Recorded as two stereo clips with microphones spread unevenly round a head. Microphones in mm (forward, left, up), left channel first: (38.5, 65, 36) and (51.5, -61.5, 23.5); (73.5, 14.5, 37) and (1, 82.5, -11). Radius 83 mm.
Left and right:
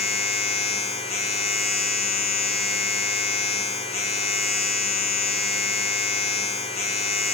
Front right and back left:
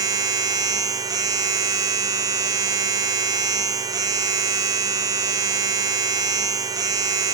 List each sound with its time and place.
0.0 s a machine running: 70° left, 1.0 m